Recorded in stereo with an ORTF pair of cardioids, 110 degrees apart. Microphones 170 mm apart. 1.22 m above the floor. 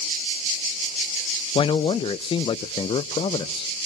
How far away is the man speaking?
About 0.5 m.